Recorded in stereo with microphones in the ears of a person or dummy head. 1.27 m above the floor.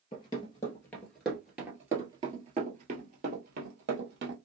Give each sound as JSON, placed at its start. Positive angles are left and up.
{"t": 0.1, "sound": "running footsteps", "side_deg": 30, "distance_m": 1.4}